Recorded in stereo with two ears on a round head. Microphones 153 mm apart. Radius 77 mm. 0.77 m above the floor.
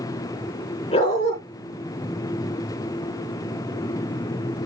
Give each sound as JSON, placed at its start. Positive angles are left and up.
{"t": 0.9, "sound": "a dog barking", "side_deg": 35, "distance_m": 4.0}